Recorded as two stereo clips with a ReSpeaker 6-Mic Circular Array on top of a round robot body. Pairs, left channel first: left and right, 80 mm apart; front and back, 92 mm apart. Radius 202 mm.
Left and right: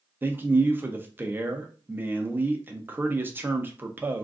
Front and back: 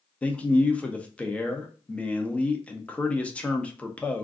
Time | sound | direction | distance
0.2 | a man speaking | 60° right | 0.8 m